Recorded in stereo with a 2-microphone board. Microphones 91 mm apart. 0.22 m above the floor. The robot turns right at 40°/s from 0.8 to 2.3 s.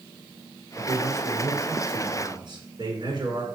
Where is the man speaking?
155° right, 3 m; by 3.5 s 95° right, 3 m.